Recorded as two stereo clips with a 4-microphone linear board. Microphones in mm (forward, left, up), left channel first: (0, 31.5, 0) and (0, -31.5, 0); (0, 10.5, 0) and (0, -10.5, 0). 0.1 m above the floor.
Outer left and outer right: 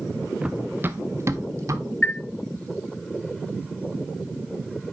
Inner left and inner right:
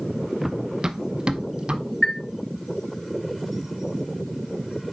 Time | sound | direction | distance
0.4 | running footsteps | 15° right (ahead or behind) | 0.8 m
2.0 | a chime | 20° left (ahead or behind) | 0.7 m